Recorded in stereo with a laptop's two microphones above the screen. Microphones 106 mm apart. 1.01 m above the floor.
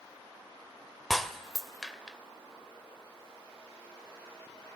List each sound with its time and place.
1.1 s breaking glass: centre (ahead or behind), 1.1 m